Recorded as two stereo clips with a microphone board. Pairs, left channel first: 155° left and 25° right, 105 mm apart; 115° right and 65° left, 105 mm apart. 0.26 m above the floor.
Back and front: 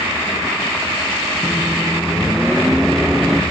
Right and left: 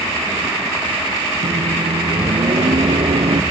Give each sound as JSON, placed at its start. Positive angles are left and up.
{"t": 1.4, "sound": "a microwave", "azimuth_deg": 65}